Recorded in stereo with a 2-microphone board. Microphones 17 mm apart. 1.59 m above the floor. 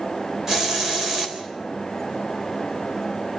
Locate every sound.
0.5 s a hiss: 25° right (ahead or behind), 4 m